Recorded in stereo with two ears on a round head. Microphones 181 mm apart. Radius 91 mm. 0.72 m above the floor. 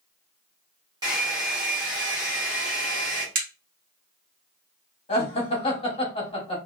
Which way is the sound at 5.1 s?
30° left (ahead or behind).